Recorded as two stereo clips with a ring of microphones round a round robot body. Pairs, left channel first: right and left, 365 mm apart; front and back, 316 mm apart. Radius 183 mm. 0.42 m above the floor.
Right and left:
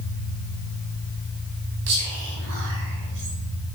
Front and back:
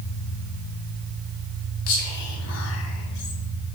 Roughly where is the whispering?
Ahead left.